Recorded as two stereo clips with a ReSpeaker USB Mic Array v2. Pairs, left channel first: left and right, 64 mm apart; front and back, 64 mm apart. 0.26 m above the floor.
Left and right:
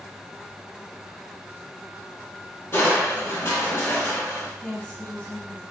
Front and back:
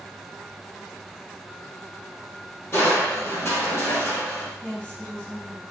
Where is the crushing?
50° left, 0.9 m.